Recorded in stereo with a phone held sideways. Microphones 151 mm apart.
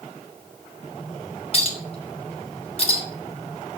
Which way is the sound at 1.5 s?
40° left (ahead or behind).